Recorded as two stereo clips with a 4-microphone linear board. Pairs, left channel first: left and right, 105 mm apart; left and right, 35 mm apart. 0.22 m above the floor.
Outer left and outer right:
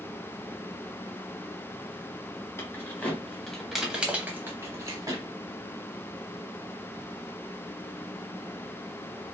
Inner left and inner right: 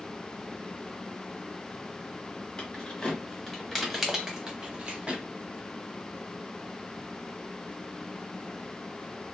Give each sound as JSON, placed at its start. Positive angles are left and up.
{"t": 2.6, "sound": "keys jangling", "side_deg": 25, "distance_m": 1.1}